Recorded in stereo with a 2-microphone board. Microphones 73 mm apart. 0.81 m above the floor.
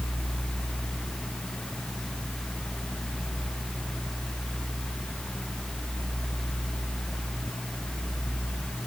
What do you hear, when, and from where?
Only background noise.